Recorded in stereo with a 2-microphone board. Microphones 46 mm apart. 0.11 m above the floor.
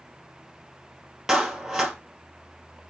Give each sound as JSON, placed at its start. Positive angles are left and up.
{"t": 1.3, "sound": "a clap", "side_deg": -5, "distance_m": 2.0}